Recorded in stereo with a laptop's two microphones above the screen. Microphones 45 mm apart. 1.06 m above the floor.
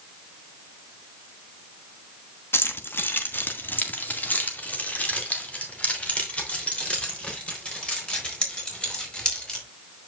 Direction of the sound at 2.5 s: 60° left (ahead or behind).